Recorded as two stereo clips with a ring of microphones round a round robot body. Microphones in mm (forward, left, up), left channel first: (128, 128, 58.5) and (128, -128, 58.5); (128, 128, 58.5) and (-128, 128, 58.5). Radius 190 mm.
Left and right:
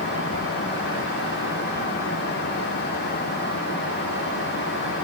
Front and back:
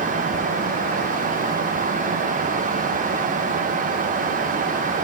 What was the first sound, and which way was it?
Only background noise.